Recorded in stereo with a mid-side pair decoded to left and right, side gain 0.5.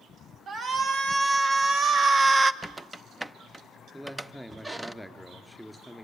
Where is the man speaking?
Straight ahead, 3 m.